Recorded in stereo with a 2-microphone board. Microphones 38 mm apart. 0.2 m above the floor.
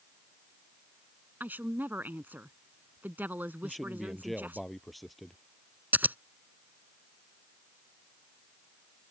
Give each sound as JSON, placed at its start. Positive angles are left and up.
{"t": 1.4, "sound": "a woman speaking", "side_deg": -55}
{"t": 3.6, "sound": "a man speaking", "side_deg": 0}
{"t": 5.9, "sound": "scissors", "side_deg": -50}